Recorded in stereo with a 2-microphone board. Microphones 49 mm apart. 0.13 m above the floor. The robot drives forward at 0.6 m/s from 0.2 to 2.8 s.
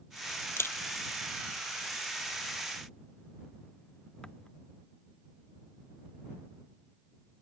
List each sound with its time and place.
0.6 s a camera shutter: 50° left (ahead or behind); by 4.5 s 15° left (ahead or behind)